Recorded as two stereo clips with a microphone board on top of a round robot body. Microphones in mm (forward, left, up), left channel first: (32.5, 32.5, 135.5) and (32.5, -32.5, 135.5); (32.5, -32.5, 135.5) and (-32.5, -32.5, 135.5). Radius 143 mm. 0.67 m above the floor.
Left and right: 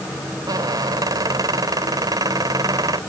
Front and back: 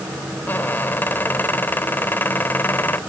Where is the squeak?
65° right.